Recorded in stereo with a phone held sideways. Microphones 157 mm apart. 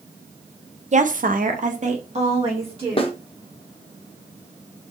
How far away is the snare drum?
About 0.7 m.